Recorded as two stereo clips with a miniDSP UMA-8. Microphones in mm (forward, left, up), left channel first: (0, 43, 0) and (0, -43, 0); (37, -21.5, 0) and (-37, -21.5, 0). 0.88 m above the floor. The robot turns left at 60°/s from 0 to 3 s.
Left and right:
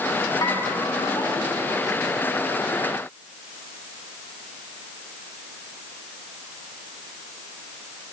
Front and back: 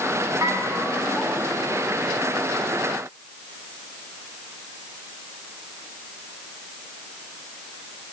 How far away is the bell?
About 8 m.